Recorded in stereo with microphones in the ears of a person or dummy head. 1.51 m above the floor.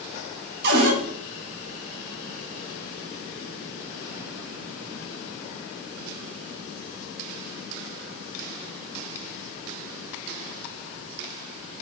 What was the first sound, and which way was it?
A cupboard door, 60° right (ahead or behind).